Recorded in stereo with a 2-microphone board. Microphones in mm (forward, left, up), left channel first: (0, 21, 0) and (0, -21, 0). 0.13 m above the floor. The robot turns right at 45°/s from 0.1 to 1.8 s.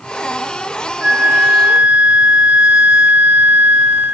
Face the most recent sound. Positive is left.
turn(degrees=5)